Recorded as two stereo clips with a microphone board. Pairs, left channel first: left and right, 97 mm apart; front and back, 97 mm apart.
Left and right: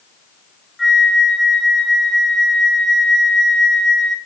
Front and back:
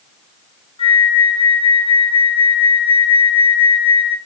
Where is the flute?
Straight ahead, 0.7 m.